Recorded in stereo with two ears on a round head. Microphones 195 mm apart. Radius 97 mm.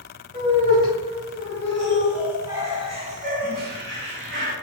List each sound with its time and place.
0.3 s laughter: 25° left (ahead or behind), 2 m; by 4.5 s 60° right (ahead or behind), 1.4 m